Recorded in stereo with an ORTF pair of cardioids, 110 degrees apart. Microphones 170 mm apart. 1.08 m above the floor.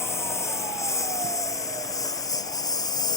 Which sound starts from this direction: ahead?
A lawn mower, at 0.0 s.